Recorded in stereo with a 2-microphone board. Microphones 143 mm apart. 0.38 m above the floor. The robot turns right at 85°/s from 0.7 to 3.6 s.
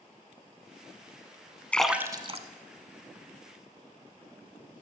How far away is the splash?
About 0.6 m.